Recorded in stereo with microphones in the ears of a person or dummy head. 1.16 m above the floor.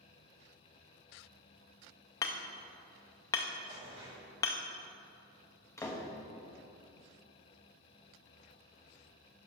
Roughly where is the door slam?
Centre.